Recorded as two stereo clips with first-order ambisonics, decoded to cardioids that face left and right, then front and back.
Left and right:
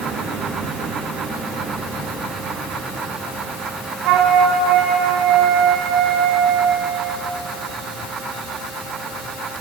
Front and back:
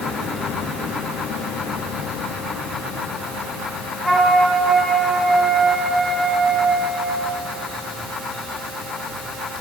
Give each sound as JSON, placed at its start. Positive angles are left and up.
{"t": 4.0, "sound": "a flute", "azimuth_deg": -90, "distance_m": 1.6}